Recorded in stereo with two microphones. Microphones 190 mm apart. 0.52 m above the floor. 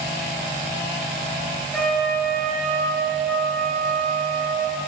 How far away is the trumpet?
About 3 m.